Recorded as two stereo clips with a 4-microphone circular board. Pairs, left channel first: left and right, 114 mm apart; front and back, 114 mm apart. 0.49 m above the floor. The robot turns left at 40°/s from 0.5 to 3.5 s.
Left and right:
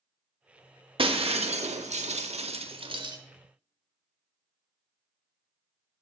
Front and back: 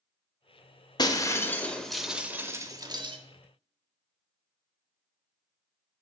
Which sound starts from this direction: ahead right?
Breaking glass, at 1.0 s.